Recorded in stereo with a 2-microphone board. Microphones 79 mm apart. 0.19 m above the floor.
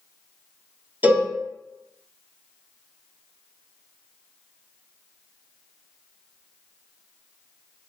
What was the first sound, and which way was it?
A cowbell, 25° right (ahead or behind).